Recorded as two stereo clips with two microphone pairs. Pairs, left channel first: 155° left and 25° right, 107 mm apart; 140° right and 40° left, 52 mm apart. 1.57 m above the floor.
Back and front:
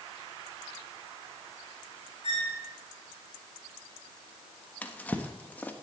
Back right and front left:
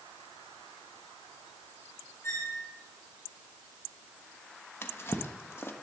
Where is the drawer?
135° right, 1.2 m.